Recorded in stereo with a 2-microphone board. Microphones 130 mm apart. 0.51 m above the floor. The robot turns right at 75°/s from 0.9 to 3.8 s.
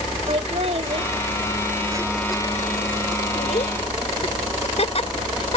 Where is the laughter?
55° right (ahead or behind); by 5.6 s 55° left (ahead or behind).